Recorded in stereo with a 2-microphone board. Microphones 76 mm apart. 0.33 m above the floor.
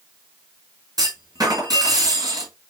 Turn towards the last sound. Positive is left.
turn(degrees=-55)  # may be behind; listen again after turning